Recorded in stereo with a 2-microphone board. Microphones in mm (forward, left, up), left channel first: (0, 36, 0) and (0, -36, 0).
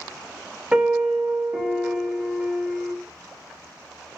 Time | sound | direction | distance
0.7 | a piano | 15° right (ahead or behind) | 0.5 m